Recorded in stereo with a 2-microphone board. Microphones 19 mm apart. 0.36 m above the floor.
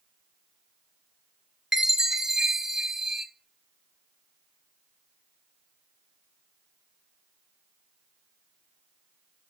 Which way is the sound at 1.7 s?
30° right (ahead or behind).